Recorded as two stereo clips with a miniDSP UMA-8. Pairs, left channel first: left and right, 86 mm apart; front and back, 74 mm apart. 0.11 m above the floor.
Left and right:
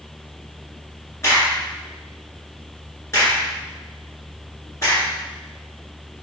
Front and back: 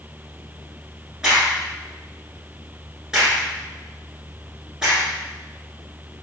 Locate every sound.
1.2 s a crack: 105° left, 1.9 m